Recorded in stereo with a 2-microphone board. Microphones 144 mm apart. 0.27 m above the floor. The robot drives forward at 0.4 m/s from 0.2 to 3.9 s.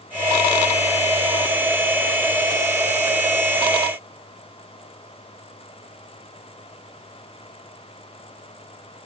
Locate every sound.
Only background noise.